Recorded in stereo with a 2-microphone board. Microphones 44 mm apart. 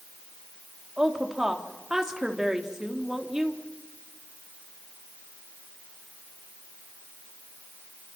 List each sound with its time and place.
1.0 s a woman speaking: 15° right (ahead or behind), 3 m